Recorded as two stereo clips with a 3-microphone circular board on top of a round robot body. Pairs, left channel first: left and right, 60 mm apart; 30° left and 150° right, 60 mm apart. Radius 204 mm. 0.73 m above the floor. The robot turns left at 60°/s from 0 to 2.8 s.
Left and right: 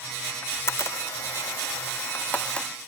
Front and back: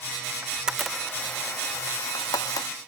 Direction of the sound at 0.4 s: 145° left.